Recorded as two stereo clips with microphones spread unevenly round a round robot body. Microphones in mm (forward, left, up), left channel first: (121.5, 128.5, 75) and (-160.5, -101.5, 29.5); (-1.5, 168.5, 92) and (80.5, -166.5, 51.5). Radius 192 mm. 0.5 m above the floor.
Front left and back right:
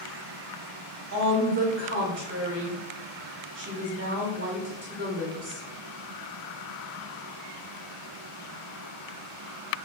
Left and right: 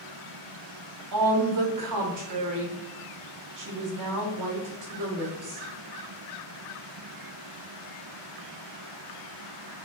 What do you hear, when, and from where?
1.1 s a woman speaking: 90° right, 1.6 m